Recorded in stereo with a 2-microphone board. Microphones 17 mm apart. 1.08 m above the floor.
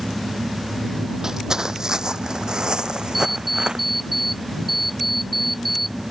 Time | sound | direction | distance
1.2 | footsteps | 30° right (ahead or behind) | ?
3.1 | an alarm clock | centre (ahead or behind) | ?